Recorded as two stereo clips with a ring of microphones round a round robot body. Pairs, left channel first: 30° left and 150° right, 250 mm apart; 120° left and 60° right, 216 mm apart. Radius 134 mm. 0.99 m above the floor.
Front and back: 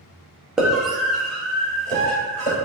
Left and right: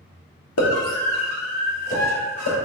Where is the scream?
125° left, 1.3 m; by 2.5 s 115° left, 3.5 m.